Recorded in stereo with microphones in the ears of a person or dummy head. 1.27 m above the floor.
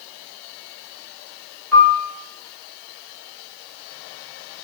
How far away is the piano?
About 1.4 m.